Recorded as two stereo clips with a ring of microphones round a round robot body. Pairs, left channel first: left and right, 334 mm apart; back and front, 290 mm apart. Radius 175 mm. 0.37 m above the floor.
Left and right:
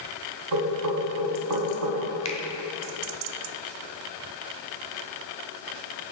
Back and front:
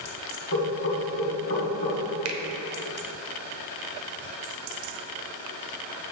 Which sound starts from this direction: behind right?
Knocking, at 0.5 s.